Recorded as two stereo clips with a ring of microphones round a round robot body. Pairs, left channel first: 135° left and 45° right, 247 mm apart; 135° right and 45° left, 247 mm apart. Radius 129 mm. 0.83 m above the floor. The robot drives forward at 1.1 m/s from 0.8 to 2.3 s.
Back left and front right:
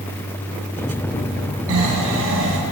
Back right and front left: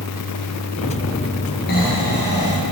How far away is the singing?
I don't hear singing.